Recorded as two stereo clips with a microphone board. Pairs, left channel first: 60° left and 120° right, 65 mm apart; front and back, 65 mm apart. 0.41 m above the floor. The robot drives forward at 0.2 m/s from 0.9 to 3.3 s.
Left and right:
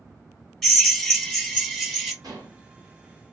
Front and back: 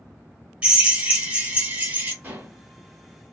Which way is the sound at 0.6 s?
135° left.